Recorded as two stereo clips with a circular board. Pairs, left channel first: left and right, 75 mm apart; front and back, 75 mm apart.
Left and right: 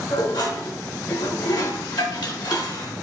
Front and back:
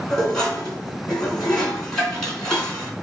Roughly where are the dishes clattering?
Left.